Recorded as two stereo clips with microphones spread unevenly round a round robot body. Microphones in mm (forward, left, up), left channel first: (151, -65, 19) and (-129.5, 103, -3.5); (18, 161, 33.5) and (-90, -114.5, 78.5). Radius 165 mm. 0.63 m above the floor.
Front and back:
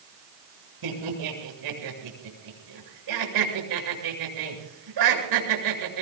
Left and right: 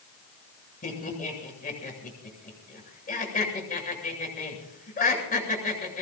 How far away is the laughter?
About 8 m.